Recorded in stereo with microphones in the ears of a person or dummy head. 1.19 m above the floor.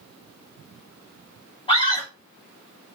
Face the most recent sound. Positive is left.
turn(degrees=30)  # may be behind; listen again after turning